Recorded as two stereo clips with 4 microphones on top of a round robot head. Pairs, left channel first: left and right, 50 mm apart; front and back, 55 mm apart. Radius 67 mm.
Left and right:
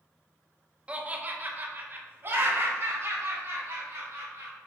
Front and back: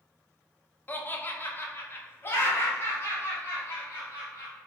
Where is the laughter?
35° right, 0.8 m; by 4.5 s 55° right, 2.5 m.